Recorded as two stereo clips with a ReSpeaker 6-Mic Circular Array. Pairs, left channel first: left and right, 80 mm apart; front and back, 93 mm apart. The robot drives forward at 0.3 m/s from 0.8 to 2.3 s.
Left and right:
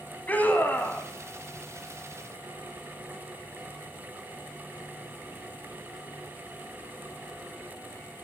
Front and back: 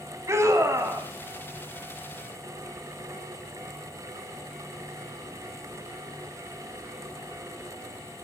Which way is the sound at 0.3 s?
145° left.